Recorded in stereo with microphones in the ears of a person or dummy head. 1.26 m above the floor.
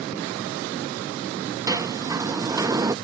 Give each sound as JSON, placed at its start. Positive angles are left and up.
{"t": 1.7, "sound": "a sliding door", "side_deg": -20}